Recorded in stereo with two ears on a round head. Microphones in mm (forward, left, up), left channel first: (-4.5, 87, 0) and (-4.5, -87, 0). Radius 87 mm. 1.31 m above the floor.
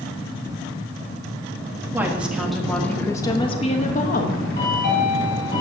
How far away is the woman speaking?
About 1.7 m.